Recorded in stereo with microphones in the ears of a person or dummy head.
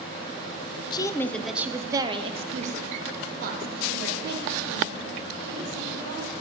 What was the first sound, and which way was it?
A woman speaking, 25° left (ahead or behind).